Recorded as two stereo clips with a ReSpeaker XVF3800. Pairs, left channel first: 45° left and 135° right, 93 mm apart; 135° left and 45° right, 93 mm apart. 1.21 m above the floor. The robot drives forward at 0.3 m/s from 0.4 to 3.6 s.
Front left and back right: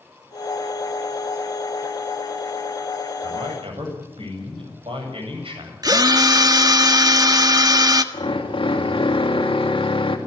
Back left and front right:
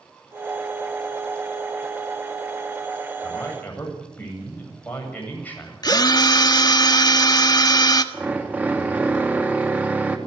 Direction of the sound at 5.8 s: Straight behind.